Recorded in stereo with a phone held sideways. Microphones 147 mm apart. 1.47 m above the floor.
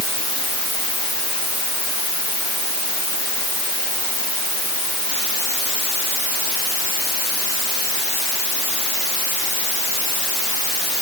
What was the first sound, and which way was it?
Only background noise.